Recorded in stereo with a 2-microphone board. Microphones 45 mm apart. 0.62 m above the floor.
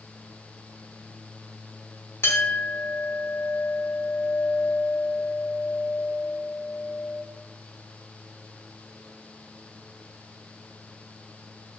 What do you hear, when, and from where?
2.2 s a clink: 65° left (ahead or behind), 1.0 m